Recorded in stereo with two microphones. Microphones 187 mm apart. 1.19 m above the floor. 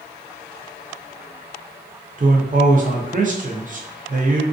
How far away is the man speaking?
About 0.5 m.